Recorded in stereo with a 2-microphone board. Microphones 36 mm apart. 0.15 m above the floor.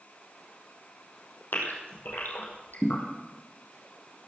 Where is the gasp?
70° left (ahead or behind), 4 m.